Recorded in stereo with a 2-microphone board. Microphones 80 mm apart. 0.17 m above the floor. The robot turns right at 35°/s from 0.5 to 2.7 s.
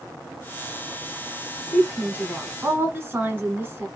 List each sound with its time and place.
1.7 s a woman speaking: 15° right (ahead or behind), 1.2 m; by 3.9 s 25° right (ahead or behind), 1.2 m